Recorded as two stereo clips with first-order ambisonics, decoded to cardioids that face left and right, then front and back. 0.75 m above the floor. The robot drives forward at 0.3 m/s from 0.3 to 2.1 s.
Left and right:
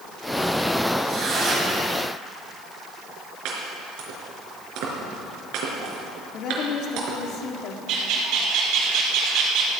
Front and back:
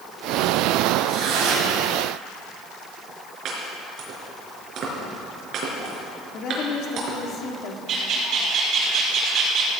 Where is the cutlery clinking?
No cutlery clinking in this recording.